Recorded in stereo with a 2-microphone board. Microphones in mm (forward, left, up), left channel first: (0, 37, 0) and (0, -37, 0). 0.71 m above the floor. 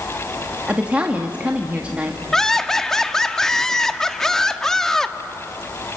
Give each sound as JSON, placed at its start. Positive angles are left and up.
{"t": 0.7, "sound": "a woman speaking", "side_deg": -20, "distance_m": 1.3}
{"t": 2.3, "sound": "laughter", "side_deg": 5, "distance_m": 1.2}